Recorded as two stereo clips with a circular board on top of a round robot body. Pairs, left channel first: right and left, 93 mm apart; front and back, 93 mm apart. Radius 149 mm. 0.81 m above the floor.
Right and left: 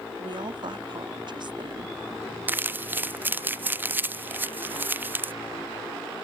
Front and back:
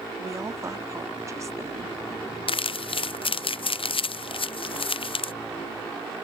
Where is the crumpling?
20° left.